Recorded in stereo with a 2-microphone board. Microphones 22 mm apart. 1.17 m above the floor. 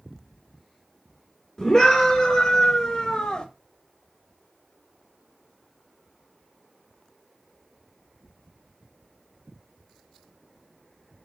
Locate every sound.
1.6 s a scream: 20° left (ahead or behind), 2.5 m; by 3.5 s 40° left (ahead or behind), 1.6 m